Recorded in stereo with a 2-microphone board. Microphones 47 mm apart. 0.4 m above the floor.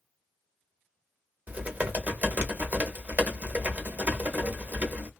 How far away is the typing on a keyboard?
About 0.8 m.